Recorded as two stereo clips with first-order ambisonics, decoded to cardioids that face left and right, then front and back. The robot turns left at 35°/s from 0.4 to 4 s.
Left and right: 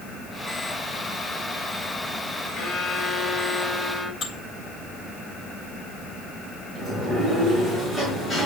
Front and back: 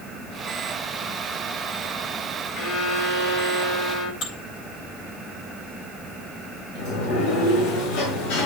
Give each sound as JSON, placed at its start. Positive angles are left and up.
{"t": 2.5, "sound": "a violin", "azimuth_deg": 45, "distance_m": 7.5}
{"t": 4.2, "sound": "dishes clattering", "azimuth_deg": 30, "distance_m": 3.5}
{"t": 6.8, "sound": "a sliding door", "azimuth_deg": -5, "distance_m": 5.5}